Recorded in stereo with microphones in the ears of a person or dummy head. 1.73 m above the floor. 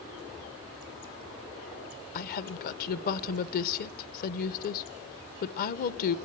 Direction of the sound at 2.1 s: 50° left (ahead or behind).